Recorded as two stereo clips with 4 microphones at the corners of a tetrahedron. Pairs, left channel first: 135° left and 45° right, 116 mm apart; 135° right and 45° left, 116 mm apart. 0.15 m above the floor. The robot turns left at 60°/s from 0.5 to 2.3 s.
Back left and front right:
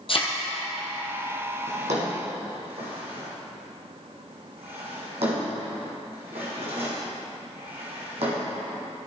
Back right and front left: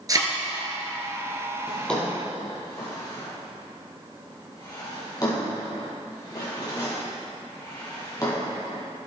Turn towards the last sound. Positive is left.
turn(degrees=-75)